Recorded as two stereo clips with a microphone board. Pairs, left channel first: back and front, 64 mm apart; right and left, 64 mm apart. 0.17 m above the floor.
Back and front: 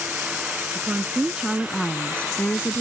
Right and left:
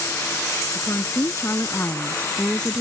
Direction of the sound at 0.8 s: 55° right.